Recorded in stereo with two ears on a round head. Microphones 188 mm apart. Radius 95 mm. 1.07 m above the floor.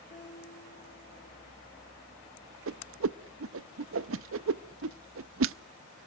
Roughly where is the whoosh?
Right.